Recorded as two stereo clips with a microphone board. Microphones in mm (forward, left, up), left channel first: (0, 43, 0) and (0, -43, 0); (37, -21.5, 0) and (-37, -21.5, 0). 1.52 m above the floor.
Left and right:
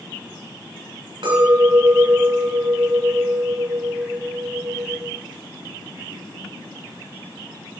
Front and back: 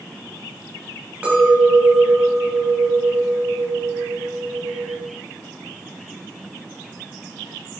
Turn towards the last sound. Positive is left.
turn(degrees=-105)